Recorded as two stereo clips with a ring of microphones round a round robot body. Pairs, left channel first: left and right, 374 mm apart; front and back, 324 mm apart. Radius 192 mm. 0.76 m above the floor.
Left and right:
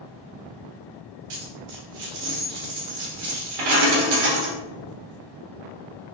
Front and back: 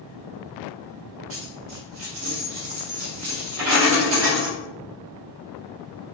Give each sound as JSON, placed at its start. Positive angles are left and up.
{"t": 1.3, "sound": "a dropped coin", "azimuth_deg": -120, "distance_m": 1.3}